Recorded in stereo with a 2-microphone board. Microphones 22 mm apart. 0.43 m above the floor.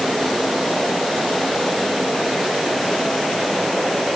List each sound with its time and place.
Only background noise.